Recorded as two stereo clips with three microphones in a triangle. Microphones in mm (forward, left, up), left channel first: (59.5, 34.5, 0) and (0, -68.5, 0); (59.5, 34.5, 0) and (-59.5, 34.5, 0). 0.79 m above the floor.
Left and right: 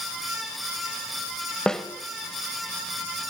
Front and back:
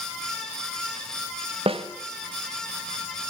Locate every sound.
1.7 s a snare drum: 145° left, 1.3 m